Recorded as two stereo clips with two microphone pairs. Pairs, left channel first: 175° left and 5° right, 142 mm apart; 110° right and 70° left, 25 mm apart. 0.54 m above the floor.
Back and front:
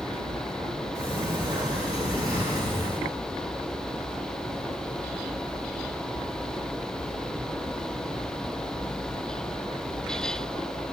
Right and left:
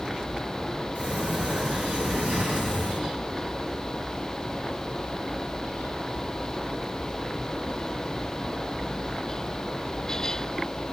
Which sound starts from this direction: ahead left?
A sliding door, at 0.9 s.